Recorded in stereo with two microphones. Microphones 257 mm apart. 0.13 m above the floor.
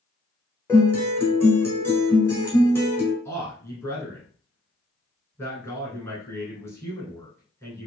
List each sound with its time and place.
0.7 s a guitar: 10° left (ahead or behind), 1.2 m
3.2 s a man speaking: 10° left (ahead or behind), 1.3 m